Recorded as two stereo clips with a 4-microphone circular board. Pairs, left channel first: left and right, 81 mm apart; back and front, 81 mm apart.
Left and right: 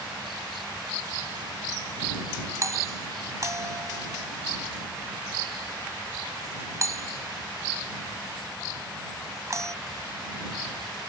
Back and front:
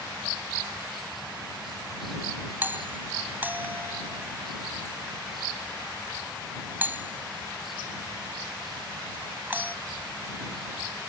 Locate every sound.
2.6 s a doorbell: 60° right